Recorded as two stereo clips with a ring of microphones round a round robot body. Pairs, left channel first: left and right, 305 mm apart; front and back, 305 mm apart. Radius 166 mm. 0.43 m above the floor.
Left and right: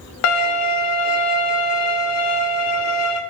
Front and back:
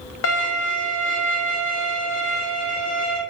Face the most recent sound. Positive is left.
turn(degrees=50)